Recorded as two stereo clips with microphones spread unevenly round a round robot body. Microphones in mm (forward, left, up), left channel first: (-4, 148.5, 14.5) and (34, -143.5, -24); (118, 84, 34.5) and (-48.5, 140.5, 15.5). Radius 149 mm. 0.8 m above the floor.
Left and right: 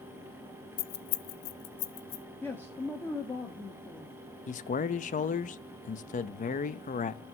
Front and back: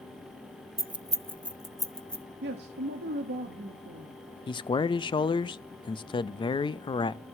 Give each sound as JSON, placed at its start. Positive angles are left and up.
{"t": 0.8, "sound": "keys jangling", "azimuth_deg": 105, "distance_m": 0.7}
{"t": 2.4, "sound": "a man speaking", "azimuth_deg": -175, "distance_m": 1.1}
{"t": 4.5, "sound": "a man speaking", "azimuth_deg": 40, "distance_m": 0.6}